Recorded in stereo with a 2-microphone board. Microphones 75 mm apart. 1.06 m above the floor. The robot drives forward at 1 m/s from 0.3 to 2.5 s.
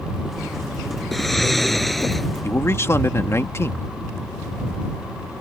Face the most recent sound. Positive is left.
turn(degrees=35)  # may be behind; listen again after turning